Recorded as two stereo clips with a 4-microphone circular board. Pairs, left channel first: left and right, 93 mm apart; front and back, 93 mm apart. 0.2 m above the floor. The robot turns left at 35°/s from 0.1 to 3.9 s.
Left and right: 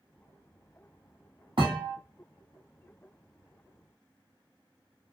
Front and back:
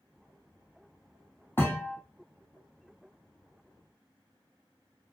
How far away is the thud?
About 1.0 m.